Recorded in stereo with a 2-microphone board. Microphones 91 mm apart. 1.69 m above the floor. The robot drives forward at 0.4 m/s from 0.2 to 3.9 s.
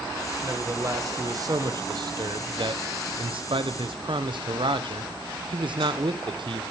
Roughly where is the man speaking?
Right.